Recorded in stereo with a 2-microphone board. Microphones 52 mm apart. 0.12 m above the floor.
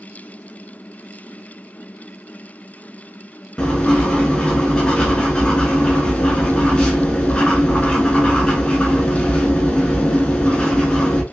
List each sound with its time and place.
3.6 s writing: 20° left (ahead or behind), 0.7 m